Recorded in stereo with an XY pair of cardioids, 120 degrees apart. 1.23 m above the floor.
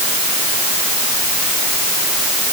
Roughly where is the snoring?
No snoring in this recording.